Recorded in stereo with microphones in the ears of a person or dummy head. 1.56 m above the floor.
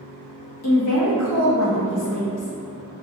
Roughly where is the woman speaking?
Left.